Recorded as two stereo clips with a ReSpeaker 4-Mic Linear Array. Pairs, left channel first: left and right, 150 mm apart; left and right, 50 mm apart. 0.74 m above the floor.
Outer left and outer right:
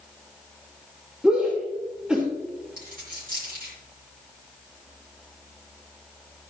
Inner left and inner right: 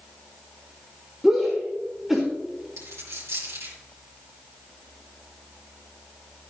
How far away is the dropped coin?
About 4.5 m.